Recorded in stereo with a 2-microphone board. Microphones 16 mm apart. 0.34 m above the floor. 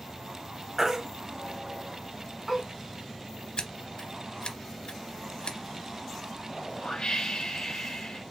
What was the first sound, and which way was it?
A baby crying, 25° right (ahead or behind).